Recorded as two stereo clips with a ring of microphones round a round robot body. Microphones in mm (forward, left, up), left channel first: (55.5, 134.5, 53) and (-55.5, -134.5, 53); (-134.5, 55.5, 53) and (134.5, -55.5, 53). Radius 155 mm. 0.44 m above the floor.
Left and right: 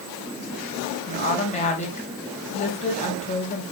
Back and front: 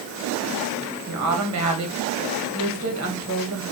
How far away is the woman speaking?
About 3 m.